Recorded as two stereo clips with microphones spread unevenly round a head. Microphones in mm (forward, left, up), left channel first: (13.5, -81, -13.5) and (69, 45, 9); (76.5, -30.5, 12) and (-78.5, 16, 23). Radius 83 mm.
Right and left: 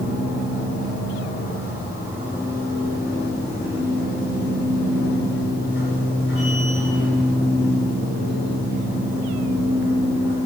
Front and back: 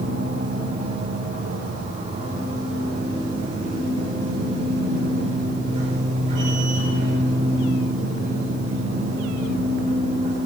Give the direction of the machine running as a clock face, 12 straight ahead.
5 o'clock.